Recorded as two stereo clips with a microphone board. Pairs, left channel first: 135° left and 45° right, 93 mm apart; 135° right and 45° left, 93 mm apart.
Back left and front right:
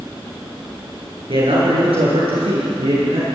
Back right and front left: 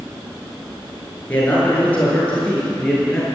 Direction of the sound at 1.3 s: 60° right.